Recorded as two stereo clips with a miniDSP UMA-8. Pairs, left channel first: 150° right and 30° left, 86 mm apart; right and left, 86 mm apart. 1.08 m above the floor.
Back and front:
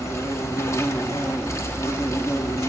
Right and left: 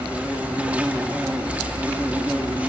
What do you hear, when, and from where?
0.0 s an insect: 160° left, 0.7 m